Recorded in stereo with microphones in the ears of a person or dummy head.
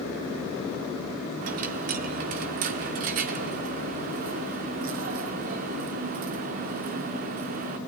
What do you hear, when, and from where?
1.4 s a dropped coin: 45° right (ahead or behind), 1.1 m